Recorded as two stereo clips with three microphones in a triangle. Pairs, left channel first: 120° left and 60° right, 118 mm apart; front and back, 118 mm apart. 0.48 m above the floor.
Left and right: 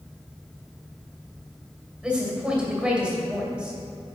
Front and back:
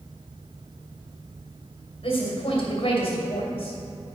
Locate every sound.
2.0 s a woman speaking: 20° left, 2 m